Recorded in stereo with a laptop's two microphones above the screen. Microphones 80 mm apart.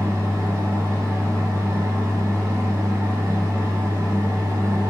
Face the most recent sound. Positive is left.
turn(degrees=-40)  # may be behind; listen again after turning